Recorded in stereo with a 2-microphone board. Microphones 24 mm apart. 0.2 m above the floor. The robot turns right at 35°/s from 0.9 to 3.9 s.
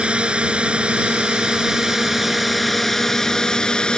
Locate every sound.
0.0 s a drone: 60° right; by 4.0 s 45° left